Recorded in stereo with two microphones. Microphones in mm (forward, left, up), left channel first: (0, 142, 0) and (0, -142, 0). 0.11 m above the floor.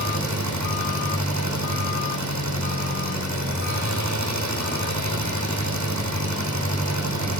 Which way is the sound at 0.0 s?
75° right (ahead or behind).